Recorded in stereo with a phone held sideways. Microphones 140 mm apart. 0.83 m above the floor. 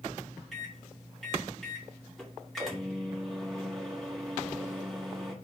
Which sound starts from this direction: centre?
A microwave, at 0.5 s.